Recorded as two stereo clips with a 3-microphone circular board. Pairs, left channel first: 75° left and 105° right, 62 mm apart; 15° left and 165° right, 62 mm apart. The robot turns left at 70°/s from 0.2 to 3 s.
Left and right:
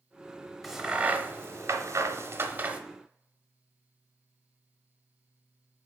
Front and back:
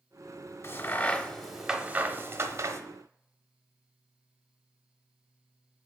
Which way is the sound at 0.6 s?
10° right.